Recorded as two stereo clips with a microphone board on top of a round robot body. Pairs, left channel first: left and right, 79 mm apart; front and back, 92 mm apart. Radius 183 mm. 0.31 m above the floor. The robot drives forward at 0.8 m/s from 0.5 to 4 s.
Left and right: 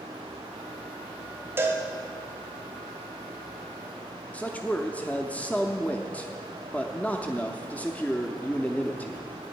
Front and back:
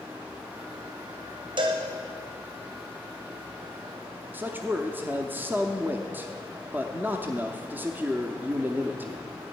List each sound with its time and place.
1.6 s a cowbell: 150° right, 1.5 m; by 1.8 s 155° right, 1.6 m
4.3 s a man speaking: 140° left, 1.0 m